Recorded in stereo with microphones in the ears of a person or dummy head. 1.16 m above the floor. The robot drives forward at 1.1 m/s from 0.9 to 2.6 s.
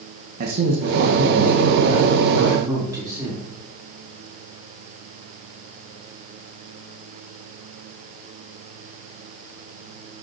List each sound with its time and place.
0.4 s a man speaking: 50° right (ahead or behind), 1.3 m; by 3.5 s 20° right (ahead or behind), 3 m